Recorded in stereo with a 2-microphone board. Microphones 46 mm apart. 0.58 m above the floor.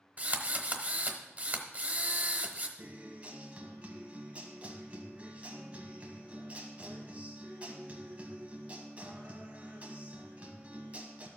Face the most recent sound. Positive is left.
turn(degrees=-30)  # may be behind; listen again after turning